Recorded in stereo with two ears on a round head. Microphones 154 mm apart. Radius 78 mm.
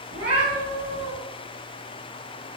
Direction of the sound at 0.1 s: 65° right (ahead or behind).